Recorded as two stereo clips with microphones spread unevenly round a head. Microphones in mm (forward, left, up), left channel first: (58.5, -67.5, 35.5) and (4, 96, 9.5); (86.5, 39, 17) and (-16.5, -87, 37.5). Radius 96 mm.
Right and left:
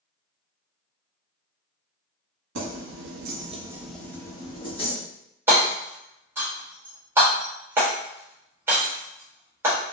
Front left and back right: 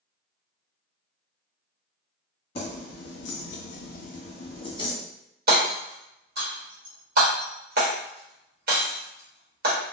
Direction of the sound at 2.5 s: 115° left.